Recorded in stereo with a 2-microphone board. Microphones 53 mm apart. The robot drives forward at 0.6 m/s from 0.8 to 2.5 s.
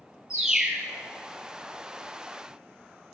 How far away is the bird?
About 1.9 m.